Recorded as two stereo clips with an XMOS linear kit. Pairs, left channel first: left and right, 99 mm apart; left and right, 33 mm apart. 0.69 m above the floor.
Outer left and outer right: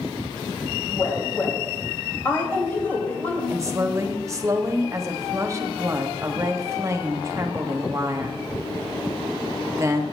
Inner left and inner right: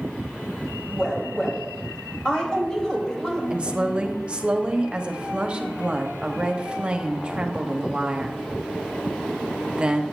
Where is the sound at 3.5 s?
30° right (ahead or behind), 1.2 m.